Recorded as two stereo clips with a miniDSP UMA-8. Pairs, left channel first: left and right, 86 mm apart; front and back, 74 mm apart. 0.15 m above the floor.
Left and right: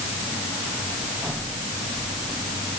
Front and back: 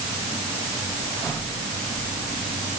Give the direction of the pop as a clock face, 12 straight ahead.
No pop in this recording.